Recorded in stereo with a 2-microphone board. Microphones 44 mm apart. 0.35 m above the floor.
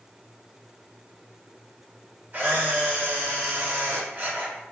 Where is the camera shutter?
35° right (ahead or behind), 1.3 m.